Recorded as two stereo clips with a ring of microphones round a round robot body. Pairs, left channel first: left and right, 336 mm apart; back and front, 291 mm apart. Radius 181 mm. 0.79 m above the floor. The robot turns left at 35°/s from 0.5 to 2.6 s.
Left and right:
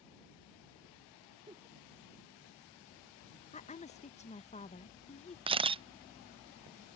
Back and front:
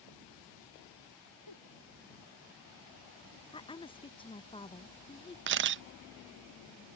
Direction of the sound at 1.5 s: 170° right.